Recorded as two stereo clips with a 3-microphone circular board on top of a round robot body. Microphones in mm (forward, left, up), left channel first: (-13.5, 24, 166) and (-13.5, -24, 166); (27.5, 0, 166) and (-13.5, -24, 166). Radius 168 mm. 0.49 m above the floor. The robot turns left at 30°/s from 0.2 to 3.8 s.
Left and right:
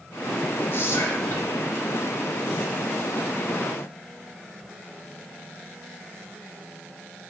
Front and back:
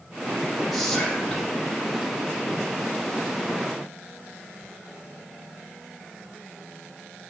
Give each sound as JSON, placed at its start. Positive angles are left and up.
{"t": 0.7, "sound": "whispering", "azimuth_deg": 125, "distance_m": 3.5}